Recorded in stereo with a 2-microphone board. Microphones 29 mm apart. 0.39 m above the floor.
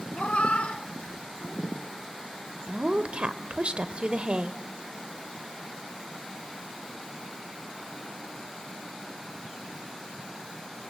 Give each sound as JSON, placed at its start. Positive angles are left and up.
{"t": 0.1, "sound": "a cat meowing", "side_deg": 65, "distance_m": 0.9}
{"t": 2.7, "sound": "a woman speaking", "side_deg": -45, "distance_m": 1.1}